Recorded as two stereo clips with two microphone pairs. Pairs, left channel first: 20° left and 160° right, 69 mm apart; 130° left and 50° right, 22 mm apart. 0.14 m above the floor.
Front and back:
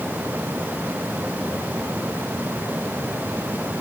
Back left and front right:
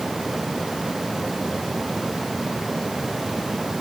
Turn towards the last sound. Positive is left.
No sound to turn to.